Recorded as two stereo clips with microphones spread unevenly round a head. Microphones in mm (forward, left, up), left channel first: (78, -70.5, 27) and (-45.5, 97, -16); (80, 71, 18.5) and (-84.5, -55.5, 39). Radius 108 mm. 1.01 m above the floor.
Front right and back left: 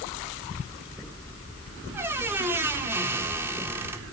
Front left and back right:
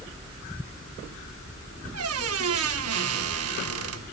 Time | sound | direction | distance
1.9 | a squeak | 150° right | 1.3 m